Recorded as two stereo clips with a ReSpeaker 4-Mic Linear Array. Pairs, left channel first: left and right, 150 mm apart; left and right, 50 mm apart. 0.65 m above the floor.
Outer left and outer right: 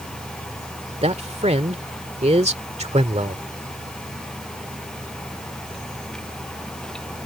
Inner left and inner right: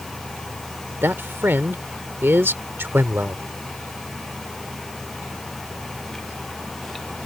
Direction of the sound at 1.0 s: 45° right (ahead or behind).